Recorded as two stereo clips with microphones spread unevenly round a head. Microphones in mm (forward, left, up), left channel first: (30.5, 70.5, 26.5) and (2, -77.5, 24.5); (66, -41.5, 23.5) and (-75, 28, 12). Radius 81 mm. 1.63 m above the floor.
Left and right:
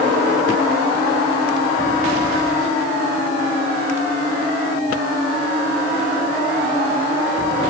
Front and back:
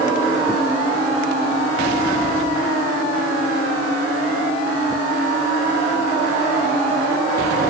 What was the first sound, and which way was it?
Only background noise.